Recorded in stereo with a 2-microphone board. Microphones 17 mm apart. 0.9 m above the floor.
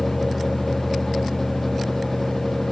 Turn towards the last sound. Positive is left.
No sound to turn to.